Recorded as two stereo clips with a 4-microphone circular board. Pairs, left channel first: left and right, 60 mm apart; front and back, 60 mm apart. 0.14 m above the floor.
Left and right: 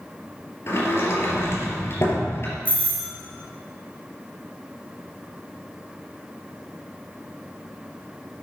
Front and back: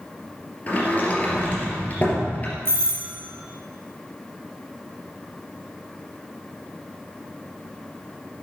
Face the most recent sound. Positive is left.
turn(degrees=150)